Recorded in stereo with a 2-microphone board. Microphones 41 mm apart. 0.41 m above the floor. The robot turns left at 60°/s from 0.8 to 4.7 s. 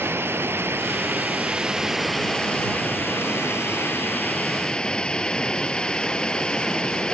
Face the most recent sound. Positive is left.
turn(degrees=20)